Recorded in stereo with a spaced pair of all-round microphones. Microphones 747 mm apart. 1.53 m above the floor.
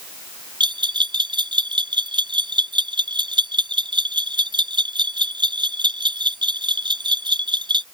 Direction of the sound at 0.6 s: 5° right (ahead or behind).